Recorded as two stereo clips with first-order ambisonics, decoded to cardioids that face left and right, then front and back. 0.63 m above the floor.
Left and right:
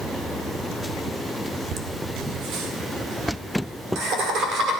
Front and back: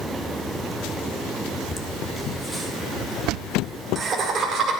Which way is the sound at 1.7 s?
65° right.